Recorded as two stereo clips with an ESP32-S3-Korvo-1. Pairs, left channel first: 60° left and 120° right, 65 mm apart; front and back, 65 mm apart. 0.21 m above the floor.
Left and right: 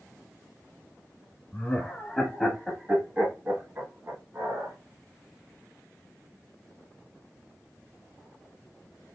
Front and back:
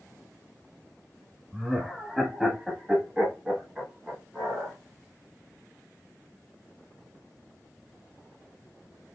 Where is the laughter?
95° left, 1.1 m; by 4.8 s 105° right, 1.7 m.